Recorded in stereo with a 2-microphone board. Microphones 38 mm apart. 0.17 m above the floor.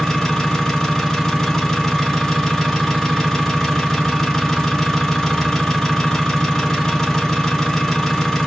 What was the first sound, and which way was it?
An engine running, 15° left (ahead or behind).